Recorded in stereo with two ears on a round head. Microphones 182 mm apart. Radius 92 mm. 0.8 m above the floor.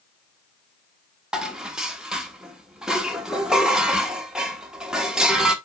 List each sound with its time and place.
1.3 s dishes clattering: 5° right (ahead or behind), 1.0 m